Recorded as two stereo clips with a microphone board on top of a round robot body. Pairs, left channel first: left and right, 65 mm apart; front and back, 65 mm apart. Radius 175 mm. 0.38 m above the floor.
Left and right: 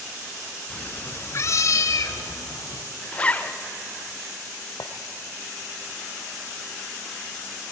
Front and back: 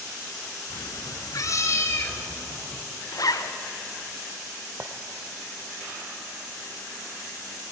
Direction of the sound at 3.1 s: 20° left.